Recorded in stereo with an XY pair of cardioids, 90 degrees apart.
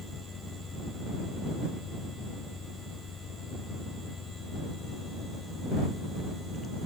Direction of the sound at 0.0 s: 50° left.